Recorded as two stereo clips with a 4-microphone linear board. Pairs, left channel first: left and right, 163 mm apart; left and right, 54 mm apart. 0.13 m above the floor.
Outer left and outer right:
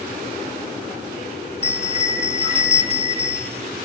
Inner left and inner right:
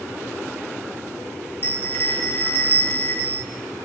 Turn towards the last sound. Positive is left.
turn(degrees=45)  # may be behind; listen again after turning